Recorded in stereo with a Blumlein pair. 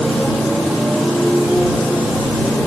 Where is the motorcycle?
5° right; by 2.7 s straight ahead.